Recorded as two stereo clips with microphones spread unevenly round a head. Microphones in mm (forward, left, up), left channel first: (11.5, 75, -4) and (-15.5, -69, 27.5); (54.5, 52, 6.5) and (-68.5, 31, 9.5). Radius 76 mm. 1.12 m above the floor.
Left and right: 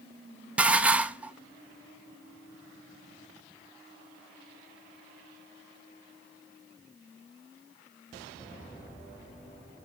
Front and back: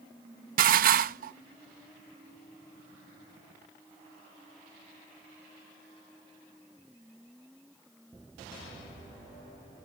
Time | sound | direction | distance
0.6 | dishes clattering | straight behind | 0.7 m